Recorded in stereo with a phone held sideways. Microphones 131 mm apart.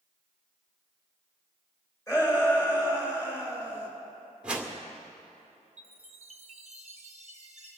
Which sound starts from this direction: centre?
A whoosh, at 4.4 s.